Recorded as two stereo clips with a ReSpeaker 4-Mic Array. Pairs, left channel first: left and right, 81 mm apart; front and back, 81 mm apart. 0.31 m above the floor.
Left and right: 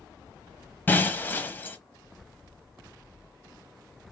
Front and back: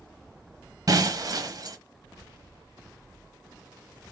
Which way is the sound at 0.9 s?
155° left.